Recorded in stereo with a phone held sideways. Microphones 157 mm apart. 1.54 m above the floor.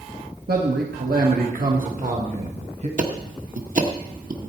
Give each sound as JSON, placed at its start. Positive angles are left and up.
{"t": 0.5, "sound": "a man speaking", "side_deg": -75, "distance_m": 1.5}
{"t": 3.0, "sound": "ticking", "side_deg": -60, "distance_m": 1.3}